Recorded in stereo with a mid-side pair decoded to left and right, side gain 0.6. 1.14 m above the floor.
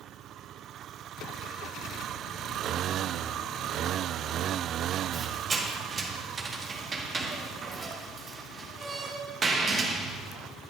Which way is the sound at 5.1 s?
30° right.